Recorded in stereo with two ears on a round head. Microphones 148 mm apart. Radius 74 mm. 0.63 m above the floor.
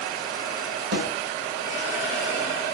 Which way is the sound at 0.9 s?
60° right (ahead or behind).